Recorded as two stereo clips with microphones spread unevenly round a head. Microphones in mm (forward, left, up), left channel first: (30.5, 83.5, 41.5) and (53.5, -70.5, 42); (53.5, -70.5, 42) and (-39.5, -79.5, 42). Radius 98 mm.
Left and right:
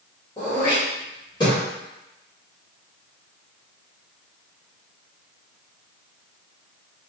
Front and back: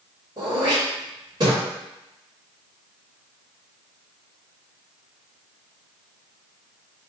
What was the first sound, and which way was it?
Throat clearing, 155° left.